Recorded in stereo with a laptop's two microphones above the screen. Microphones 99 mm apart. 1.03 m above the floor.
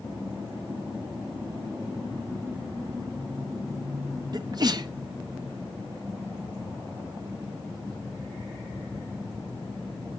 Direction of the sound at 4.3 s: 45° right (ahead or behind).